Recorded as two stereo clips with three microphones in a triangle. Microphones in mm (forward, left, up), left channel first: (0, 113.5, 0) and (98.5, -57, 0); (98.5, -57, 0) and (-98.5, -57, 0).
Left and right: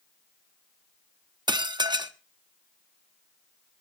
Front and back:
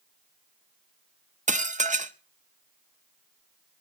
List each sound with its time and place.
1.5 s dishes clattering: 125° right, 0.8 m